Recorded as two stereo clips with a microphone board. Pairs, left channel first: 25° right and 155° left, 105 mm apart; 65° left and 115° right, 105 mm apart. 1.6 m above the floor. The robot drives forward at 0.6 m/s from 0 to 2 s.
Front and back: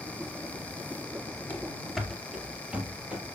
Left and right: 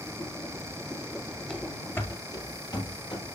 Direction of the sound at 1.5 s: Straight ahead.